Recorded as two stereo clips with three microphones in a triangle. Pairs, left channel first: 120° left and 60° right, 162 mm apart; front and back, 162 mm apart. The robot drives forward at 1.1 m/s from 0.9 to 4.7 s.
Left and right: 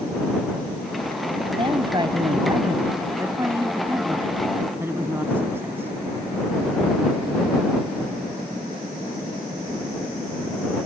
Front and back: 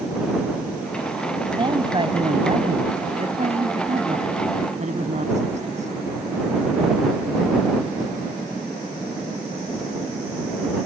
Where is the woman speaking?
120° right; by 5.9 s 135° right.